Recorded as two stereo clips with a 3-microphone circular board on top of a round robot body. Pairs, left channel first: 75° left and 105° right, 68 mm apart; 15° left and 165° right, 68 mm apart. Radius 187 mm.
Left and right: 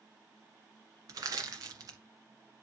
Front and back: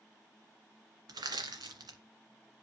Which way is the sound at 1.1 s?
140° right.